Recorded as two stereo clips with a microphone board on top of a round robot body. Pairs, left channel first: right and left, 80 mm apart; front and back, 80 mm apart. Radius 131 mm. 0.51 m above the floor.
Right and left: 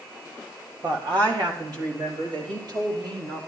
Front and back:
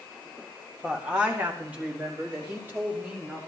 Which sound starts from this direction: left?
A woman speaking, at 0.8 s.